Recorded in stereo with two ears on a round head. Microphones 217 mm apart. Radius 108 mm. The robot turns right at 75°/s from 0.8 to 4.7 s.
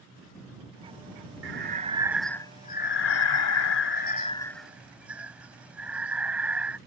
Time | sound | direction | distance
1.4 | breathing | 60° right | ?